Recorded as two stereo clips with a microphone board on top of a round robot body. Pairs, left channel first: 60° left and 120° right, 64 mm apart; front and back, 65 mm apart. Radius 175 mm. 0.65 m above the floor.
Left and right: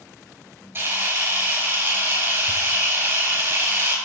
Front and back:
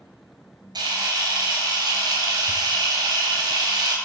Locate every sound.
0.8 s a camera shutter: 175° right, 4.5 m